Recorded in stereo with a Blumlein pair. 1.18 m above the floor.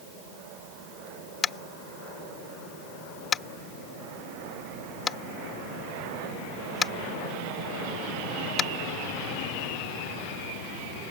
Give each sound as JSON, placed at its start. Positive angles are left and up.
{"t": 1.4, "sound": "tapping", "azimuth_deg": 20}